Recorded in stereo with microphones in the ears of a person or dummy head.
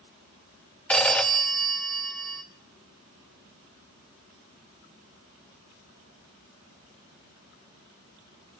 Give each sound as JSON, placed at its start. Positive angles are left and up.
{"t": 0.9, "sound": "a phone ringing", "side_deg": 10, "distance_m": 1.0}